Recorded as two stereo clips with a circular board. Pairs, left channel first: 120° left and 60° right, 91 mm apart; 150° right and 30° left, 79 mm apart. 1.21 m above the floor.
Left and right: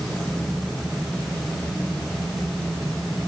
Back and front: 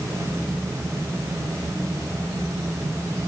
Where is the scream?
I don't hear a scream.